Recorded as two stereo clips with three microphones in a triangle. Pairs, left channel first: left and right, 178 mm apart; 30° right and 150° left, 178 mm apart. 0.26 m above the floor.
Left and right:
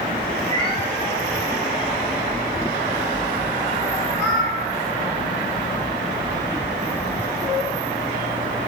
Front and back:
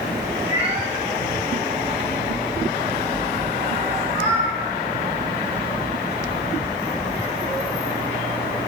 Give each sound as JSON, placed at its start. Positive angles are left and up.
{"t": 0.4, "sound": "a cat meowing", "azimuth_deg": 145, "distance_m": 5.0}